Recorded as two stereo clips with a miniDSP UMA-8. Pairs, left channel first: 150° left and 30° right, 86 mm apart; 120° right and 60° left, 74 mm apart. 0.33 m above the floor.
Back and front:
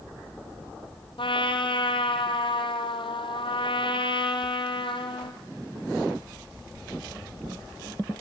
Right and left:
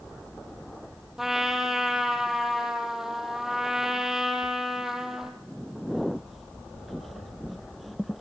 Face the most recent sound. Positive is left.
turn(degrees=145)